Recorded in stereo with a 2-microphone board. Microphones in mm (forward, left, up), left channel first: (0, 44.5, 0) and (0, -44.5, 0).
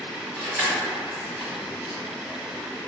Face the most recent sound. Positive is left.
turn(degrees=-5)  # may be behind; listen again after turning